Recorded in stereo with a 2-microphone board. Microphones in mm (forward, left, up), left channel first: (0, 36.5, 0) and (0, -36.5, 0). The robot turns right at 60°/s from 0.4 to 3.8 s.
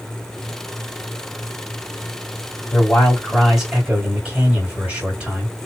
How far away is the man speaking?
About 2 m.